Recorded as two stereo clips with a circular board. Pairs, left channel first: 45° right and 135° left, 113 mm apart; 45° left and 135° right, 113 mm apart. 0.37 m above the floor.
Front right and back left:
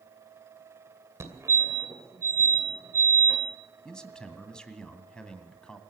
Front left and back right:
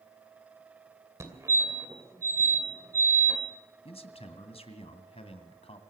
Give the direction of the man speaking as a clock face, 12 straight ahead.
11 o'clock.